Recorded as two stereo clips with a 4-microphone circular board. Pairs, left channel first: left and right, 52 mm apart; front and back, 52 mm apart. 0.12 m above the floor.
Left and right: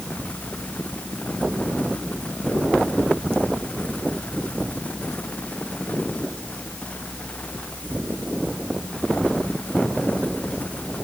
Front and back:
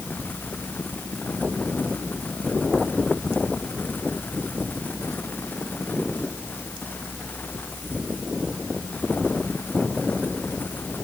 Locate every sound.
Only background noise.